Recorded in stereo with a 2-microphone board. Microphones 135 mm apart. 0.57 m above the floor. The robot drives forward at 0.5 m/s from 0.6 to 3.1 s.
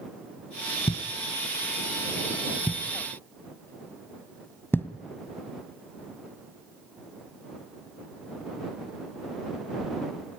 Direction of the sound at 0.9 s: 45° left (ahead or behind).